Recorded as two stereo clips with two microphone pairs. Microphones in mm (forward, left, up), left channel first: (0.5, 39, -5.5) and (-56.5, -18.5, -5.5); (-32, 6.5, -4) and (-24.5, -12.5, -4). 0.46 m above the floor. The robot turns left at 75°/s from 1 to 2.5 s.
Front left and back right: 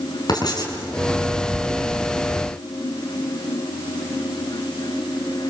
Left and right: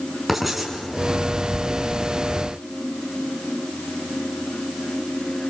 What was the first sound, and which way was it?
Writing, 15° left.